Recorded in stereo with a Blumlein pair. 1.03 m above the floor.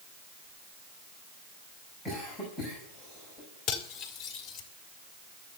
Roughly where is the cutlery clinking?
Ahead left.